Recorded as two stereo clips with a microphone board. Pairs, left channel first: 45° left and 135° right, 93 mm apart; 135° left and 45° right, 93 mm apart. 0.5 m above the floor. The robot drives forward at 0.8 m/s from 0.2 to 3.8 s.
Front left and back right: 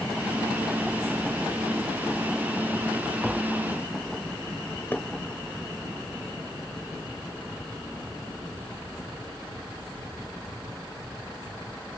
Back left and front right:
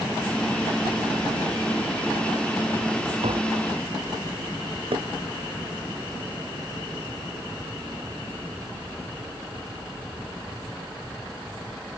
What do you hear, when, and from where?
3.2 s tapping: 50° right
4.9 s knocking: 25° right